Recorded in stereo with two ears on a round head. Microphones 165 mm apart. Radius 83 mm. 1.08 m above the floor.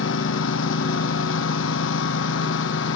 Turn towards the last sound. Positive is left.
turn(degrees=75)  # may be behind; listen again after turning